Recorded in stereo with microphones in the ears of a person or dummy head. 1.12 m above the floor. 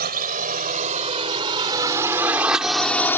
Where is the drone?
35° right (ahead or behind); by 3.2 s 10° left (ahead or behind).